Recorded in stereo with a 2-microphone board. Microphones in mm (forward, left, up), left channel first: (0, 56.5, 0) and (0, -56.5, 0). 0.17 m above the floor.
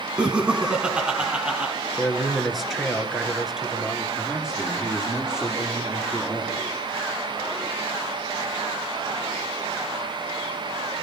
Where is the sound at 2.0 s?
Centre (ahead or behind), 3 m.